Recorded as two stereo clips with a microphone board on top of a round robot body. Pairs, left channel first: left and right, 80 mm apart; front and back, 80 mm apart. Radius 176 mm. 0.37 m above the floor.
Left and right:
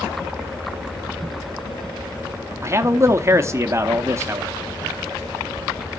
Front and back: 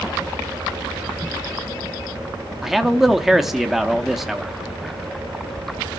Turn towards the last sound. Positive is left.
turn(degrees=-95)